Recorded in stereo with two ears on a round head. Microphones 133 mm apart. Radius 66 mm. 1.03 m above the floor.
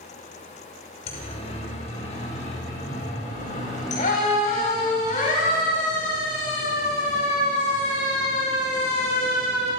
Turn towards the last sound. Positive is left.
turn(degrees=60)  # may be behind; listen again after turning